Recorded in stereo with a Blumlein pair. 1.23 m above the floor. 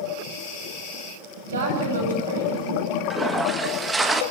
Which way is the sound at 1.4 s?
70° right.